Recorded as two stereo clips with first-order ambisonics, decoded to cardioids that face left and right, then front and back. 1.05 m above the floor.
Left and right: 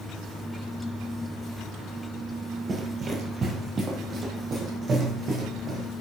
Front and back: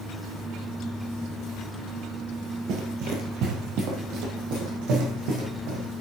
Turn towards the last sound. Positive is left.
turn(degrees=-155)